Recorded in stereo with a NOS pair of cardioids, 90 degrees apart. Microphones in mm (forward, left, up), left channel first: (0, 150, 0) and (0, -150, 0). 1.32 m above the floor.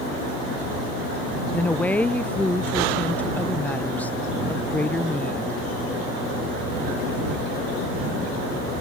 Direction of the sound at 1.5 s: 5° left.